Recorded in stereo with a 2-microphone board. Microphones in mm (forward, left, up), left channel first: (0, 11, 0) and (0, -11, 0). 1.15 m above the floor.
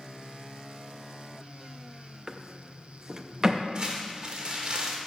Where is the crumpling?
40° right (ahead or behind), 1.6 m.